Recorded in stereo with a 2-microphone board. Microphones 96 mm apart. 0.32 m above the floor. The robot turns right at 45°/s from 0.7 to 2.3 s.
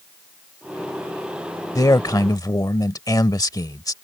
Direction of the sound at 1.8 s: 35° left (ahead or behind).